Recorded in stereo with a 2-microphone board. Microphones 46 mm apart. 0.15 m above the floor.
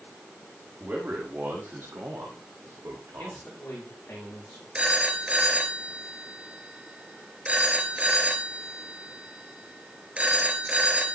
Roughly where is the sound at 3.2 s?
Left.